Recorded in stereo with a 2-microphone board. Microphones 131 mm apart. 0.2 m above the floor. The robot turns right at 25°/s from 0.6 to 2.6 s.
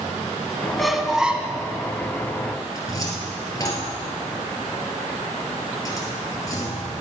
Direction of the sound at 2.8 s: 25° left (ahead or behind).